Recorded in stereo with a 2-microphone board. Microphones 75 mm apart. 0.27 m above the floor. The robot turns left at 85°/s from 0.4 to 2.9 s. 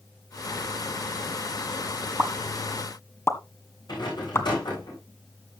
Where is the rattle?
70° left (ahead or behind), 9.5 m.